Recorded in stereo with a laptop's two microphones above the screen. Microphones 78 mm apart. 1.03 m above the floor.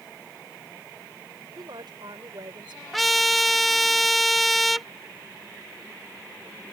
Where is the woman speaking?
70° right (ahead or behind); by 2.8 s 80° right.